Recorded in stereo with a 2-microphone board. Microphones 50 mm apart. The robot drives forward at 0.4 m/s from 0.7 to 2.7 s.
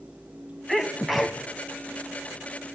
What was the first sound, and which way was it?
A sneeze, 5° right (ahead or behind).